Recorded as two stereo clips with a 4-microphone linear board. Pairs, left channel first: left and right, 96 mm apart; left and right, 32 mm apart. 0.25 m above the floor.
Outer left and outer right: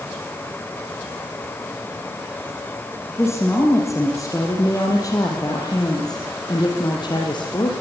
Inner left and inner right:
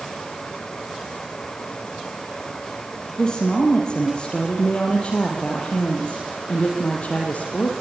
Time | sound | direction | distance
3.2 | a woman speaking | 30° left (ahead or behind) | 6 m